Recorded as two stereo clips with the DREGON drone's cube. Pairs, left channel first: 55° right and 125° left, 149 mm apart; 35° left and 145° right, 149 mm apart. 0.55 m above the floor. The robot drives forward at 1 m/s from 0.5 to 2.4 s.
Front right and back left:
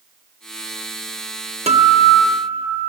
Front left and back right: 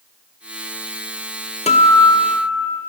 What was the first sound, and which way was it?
A guitar, 80° left.